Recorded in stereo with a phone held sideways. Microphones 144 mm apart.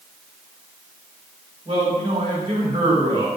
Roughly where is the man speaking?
Right.